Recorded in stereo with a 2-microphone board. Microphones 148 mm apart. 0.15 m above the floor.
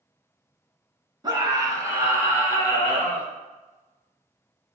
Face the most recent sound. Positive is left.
turn(degrees=-5)  # may be behind; listen again after turning